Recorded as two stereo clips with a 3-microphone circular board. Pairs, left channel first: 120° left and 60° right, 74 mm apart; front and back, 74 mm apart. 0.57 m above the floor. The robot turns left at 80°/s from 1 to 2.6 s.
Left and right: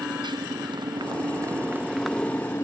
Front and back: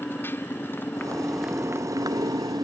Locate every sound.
0.0 s a motorcycle: 60° right; by 2.6 s 165° left